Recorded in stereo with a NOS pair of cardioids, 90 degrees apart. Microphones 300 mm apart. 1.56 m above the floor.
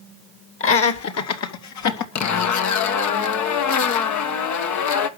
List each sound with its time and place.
0.6 s laughter: 45° left, 2 m; by 2.0 s 75° left, 2 m
2.1 s a zipper: 70° left, 1.4 m